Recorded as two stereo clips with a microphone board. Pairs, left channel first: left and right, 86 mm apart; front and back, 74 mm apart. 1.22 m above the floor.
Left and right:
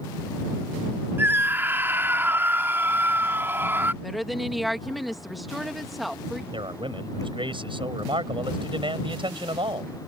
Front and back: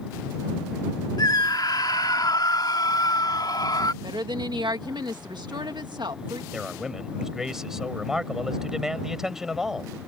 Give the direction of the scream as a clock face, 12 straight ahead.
1 o'clock.